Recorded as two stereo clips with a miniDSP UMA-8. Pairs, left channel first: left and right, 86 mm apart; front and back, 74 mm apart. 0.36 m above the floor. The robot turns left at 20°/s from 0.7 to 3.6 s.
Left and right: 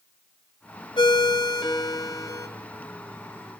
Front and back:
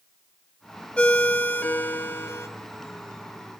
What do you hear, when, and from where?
1.0 s a ringtone: 75° left, 1.0 m; by 2.5 s 45° left, 1.0 m